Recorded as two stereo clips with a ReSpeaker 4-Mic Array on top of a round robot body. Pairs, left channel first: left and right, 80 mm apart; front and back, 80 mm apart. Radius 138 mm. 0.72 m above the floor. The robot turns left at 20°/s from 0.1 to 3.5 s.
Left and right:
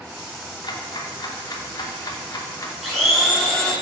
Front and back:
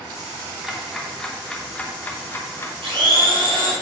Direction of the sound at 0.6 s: 90° left.